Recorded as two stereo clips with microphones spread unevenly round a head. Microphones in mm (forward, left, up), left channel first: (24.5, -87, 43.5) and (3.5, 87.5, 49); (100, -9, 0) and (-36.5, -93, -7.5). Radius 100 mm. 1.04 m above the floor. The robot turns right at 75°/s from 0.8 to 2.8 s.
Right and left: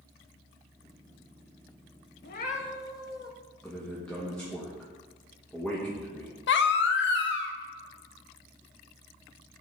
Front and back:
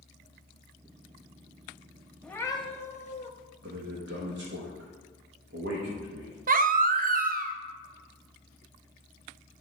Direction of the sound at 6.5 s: 110° right.